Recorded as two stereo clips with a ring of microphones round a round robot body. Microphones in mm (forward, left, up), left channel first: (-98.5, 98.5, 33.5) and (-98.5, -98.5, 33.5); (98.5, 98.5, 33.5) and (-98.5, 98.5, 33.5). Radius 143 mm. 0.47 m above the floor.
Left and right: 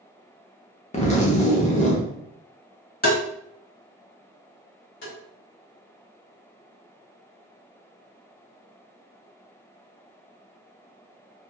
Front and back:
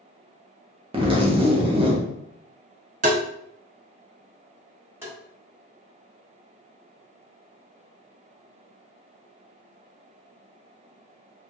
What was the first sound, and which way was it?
A zipper, 130° left.